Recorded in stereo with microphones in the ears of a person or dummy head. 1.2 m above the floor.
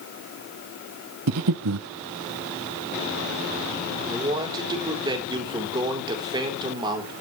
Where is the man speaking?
20° right (ahead or behind), 3.5 m.